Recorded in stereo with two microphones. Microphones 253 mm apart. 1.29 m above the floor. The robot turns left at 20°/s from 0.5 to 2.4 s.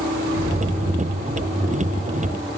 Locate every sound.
0.3 s an explosion: 40° right (ahead or behind), 2 m; by 1.7 s 15° right (ahead or behind), 2 m